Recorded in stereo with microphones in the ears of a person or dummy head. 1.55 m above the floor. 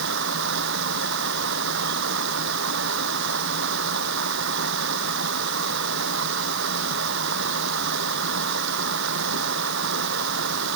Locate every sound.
0.0 s running water: 70° right (ahead or behind)